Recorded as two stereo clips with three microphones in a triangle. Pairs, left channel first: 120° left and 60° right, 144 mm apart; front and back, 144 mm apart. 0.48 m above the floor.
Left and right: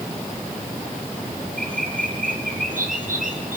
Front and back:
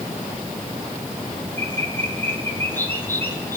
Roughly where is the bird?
Right.